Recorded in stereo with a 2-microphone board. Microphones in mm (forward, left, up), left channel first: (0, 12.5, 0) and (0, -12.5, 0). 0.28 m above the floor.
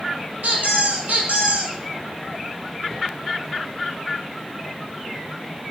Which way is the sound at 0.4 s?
70° right (ahead or behind).